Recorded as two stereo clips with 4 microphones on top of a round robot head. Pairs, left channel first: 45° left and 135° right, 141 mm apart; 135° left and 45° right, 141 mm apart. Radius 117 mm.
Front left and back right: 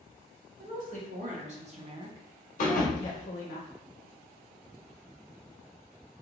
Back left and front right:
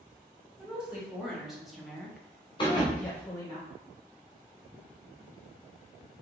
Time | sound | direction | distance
0.6 | a woman speaking | 125° right | 1.7 m
2.6 | a thud | 80° left | 0.7 m